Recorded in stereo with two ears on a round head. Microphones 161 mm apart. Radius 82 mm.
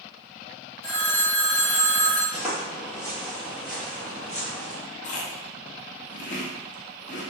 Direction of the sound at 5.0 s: 40° left (ahead or behind).